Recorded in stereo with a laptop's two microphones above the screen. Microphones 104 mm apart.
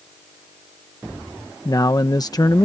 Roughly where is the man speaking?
Left.